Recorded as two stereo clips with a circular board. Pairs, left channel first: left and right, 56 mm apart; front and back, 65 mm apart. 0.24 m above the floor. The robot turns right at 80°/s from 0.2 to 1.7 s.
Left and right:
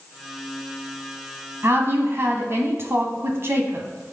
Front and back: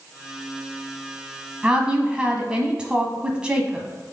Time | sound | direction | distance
1.6 | a woman speaking | 115° right | 1.3 m